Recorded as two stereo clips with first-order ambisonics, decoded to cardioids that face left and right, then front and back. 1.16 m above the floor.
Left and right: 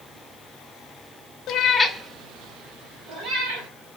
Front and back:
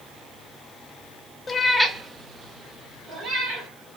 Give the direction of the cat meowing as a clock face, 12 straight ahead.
10 o'clock.